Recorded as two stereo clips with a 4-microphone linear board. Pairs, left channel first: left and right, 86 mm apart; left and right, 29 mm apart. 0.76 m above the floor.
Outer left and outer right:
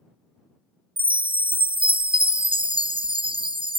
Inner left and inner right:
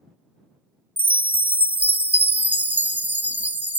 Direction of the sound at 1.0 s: 85° right.